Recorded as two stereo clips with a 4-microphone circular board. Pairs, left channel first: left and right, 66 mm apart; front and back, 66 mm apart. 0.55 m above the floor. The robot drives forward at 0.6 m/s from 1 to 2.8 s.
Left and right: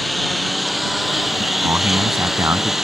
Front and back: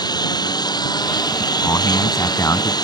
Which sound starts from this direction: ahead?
A lawn mower, at 0.0 s.